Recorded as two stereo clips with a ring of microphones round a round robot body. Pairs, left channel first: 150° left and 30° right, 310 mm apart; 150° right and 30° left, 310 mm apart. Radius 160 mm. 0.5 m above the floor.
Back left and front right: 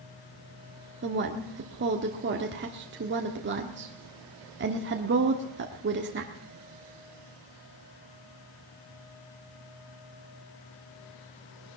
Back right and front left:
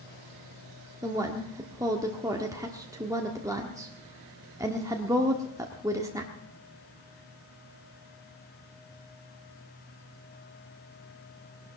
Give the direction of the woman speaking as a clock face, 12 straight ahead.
1 o'clock.